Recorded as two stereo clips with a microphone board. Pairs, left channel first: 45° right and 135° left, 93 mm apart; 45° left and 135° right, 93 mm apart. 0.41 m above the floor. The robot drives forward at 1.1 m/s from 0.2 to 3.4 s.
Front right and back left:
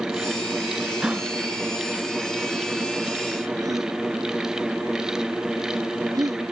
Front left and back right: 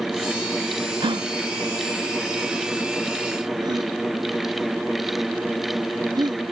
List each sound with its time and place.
1.0 s a gasp: 140° right; by 6.4 s 175° right